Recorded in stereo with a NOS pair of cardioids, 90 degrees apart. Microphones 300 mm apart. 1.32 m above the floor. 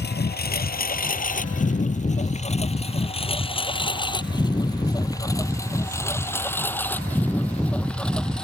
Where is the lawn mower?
35° left; by 8.4 s straight ahead.